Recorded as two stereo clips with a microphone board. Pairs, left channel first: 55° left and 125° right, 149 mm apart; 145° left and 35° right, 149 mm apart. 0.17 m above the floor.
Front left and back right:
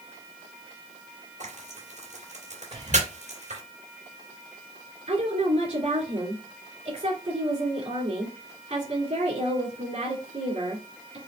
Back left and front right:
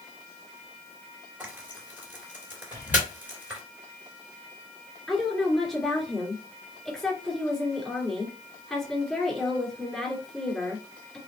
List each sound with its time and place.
1.4 s frying: 110° right, 3 m
2.7 s whispering: 165° right, 2.5 m
5.1 s a woman speaking: 130° right, 2.5 m